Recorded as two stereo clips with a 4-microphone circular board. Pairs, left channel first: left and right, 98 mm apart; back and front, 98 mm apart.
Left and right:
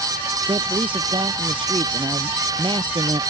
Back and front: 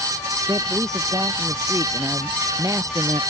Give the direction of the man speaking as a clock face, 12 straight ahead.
2 o'clock.